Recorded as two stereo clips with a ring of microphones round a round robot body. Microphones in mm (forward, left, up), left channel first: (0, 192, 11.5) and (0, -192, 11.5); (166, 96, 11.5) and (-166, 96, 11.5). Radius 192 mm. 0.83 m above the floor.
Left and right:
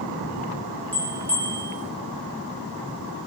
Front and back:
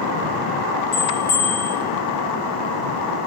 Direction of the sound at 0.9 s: 5° left.